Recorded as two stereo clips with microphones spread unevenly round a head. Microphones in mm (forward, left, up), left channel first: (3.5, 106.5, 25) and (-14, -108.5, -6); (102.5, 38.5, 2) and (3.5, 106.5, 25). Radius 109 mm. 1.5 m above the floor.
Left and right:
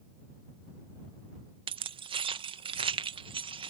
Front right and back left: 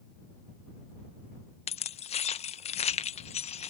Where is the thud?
I don't hear a thud.